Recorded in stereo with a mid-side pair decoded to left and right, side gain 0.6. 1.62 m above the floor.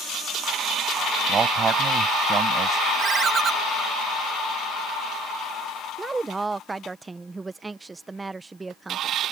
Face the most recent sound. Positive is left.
turn(degrees=-20)